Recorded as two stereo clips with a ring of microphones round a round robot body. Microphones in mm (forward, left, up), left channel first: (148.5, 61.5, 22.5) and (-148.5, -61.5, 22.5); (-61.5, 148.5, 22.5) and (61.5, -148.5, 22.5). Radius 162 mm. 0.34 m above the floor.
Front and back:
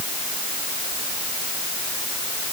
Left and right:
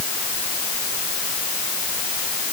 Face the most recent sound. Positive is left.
No sound to turn to.